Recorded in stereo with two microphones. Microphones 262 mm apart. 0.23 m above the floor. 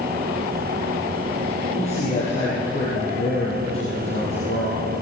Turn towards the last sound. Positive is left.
turn(degrees=25)  # may be behind; listen again after turning